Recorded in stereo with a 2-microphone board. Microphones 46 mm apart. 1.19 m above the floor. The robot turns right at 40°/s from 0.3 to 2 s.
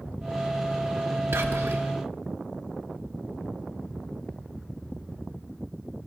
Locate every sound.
1.3 s whispering: 70° right (ahead or behind), 1.7 m; by 1.8 s 80° right, 1.7 m